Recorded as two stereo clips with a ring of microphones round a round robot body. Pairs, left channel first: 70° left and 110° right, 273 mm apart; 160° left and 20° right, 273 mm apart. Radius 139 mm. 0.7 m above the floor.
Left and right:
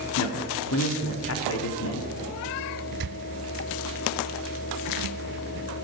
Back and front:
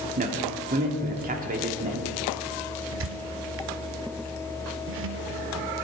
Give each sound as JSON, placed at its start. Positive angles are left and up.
{"t": 0.2, "sound": "a man speaking", "azimuth_deg": 35, "distance_m": 1.7}
{"t": 2.9, "sound": "a squeak", "azimuth_deg": -65, "distance_m": 0.5}